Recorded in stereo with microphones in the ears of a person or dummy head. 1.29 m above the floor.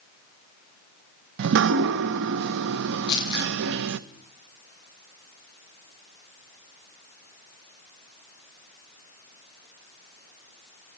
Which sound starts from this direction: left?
Crumpling, at 3.1 s.